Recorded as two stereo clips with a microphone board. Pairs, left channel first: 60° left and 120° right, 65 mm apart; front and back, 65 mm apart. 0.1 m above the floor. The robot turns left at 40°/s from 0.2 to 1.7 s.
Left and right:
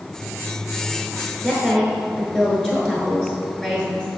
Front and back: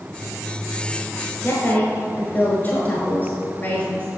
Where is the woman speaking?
5° right, 1.2 m; by 4.1 s 15° right, 1.2 m.